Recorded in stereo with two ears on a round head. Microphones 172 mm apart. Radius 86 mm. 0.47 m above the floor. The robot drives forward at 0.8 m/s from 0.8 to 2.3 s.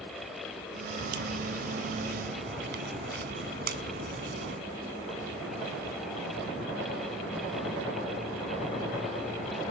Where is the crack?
70° right (ahead or behind); by 4.6 s 55° right (ahead or behind).